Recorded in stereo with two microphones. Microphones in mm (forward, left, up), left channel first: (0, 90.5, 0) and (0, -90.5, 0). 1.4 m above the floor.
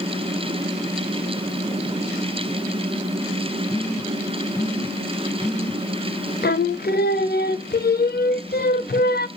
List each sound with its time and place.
3.7 s a phone buzzing: 5° left (ahead or behind), 2.5 m
6.4 s singing: 60° left (ahead or behind), 0.7 m